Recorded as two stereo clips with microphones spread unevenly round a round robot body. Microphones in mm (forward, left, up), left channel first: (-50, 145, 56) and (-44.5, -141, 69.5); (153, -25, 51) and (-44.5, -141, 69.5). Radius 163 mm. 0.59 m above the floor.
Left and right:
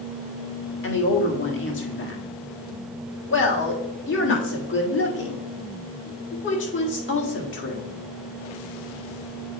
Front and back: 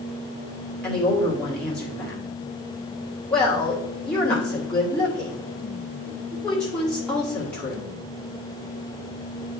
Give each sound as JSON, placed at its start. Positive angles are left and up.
{"t": 0.8, "sound": "a woman speaking", "azimuth_deg": 110, "distance_m": 1.6}